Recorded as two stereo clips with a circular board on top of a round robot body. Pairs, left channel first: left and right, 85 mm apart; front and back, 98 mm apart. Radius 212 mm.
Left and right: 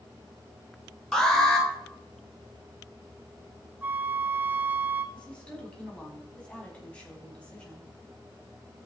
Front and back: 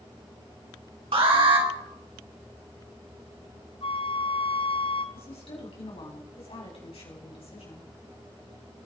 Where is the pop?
I don't hear a pop.